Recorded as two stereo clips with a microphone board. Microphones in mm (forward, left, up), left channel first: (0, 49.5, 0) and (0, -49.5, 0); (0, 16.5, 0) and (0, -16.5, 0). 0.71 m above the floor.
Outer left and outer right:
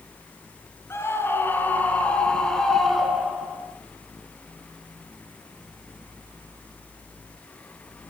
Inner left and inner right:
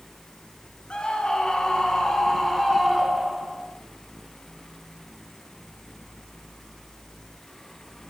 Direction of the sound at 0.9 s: 25° left (ahead or behind).